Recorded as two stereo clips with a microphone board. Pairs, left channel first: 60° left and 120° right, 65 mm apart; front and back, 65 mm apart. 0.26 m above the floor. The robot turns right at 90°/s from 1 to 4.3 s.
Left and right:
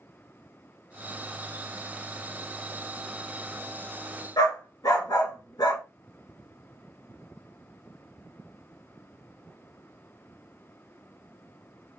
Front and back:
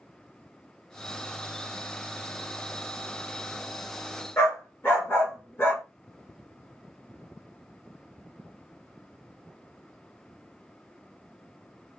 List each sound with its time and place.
4.4 s a dog barking: 55° left, 1.7 m